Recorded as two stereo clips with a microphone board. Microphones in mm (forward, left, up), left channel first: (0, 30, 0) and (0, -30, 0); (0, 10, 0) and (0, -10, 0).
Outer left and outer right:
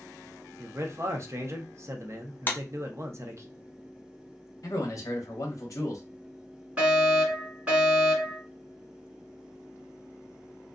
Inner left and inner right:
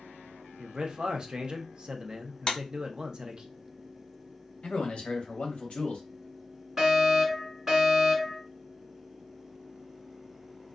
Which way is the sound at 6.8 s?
20° right (ahead or behind).